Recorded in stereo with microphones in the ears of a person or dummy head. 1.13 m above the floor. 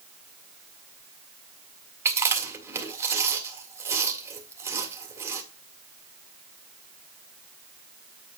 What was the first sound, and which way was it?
Chewing, 20° right (ahead or behind).